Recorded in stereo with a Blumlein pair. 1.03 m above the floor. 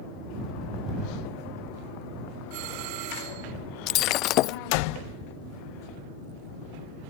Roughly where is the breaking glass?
Ahead left.